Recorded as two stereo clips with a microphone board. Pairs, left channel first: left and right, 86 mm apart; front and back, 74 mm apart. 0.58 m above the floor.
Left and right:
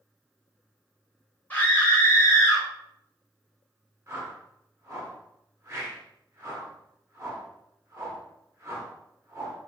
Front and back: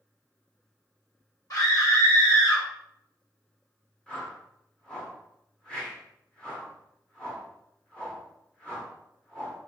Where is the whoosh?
65° right, 1.0 m.